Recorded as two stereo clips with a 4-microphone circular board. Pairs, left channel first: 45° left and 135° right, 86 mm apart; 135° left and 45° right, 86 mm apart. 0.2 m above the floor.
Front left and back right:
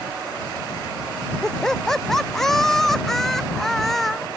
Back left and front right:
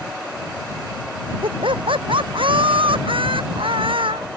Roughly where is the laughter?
Ahead right.